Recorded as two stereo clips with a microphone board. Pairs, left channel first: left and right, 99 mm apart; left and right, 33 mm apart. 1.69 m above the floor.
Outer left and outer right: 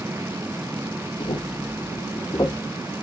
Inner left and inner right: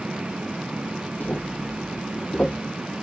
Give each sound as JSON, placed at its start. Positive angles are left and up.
{"t": 1.2, "sound": "footsteps", "side_deg": 55, "distance_m": 3.0}